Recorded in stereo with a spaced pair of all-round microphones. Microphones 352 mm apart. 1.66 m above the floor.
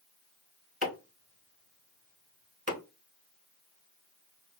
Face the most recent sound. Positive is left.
turn(degrees=-25)  # may be behind; listen again after turning